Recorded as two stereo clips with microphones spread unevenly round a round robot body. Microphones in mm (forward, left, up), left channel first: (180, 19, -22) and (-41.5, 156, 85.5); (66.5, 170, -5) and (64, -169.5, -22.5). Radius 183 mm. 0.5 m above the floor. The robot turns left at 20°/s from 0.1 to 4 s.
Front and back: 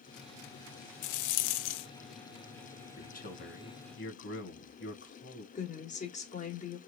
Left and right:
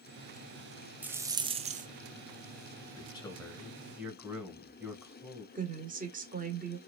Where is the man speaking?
15° left, 2.5 m; by 5.5 s 5° right, 2.5 m.